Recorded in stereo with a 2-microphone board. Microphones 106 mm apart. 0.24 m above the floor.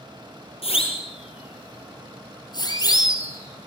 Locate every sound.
0.6 s a siren: 70° left (ahead or behind), 6 m; by 3.7 s 25° left (ahead or behind), 4.5 m